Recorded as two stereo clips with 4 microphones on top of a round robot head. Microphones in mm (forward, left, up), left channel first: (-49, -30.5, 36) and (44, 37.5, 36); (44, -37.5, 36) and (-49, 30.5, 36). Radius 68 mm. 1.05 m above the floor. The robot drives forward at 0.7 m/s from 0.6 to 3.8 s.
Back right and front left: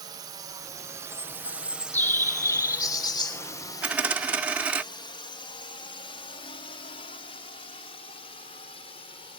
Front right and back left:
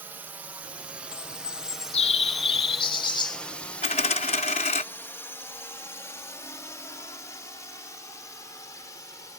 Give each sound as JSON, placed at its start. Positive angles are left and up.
{"t": 0.0, "sound": "a drone", "azimuth_deg": 75}
{"t": 1.1, "sound": "a bird", "azimuth_deg": -60}
{"t": 3.8, "sound": "a dropped coin", "azimuth_deg": -40}